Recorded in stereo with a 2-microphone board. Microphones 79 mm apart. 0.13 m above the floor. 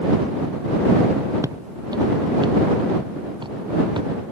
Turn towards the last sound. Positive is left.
turn(degrees=-75)  # may be behind; listen again after turning